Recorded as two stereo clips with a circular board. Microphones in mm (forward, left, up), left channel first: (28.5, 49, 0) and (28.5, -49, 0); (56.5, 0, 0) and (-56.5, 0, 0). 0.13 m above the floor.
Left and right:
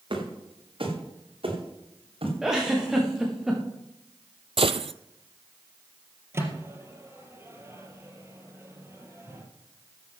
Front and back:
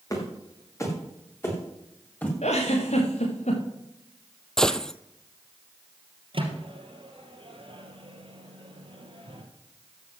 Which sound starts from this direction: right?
A gunshot, at 4.6 s.